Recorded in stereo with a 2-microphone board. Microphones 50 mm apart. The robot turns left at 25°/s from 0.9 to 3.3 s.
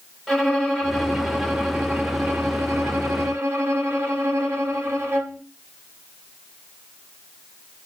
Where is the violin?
5° left, 3 m; by 5.4 s 55° right, 3 m.